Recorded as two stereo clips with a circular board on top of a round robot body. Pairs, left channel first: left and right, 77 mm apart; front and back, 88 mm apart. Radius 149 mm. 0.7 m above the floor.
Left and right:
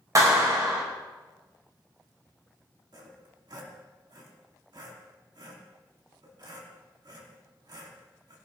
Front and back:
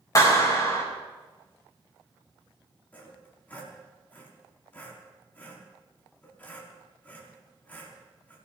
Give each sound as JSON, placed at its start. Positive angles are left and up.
{"t": 0.1, "sound": "a clap", "azimuth_deg": -50, "distance_m": 6.0}
{"t": 2.9, "sound": "sawing", "azimuth_deg": -70, "distance_m": 4.5}